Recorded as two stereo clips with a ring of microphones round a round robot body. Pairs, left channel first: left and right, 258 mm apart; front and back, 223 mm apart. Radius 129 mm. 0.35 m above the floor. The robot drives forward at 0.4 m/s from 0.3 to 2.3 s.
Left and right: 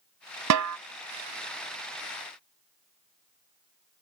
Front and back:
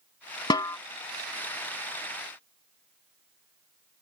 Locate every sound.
0.5 s a snare drum: 75° right; by 0.8 s 80° right